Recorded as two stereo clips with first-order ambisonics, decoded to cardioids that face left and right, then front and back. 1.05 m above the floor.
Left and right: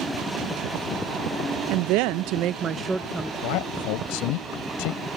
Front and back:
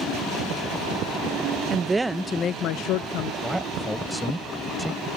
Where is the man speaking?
90° left.